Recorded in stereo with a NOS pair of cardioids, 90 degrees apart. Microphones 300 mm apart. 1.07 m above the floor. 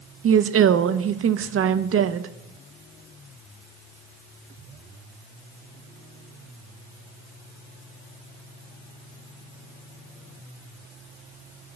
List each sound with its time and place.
0.2 s a woman speaking: 45° right, 0.9 m